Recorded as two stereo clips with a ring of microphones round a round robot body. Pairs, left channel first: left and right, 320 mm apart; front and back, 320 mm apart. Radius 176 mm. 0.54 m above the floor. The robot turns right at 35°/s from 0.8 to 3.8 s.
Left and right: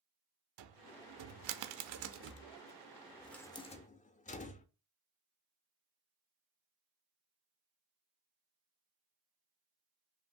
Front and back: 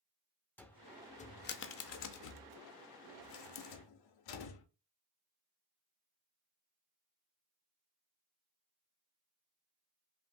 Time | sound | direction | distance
0.6 | a cupboard door | 85° right | 0.6 m